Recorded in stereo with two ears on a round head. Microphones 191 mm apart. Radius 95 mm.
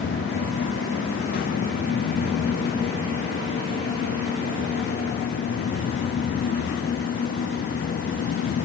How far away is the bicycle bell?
No bicycle bell in this recording.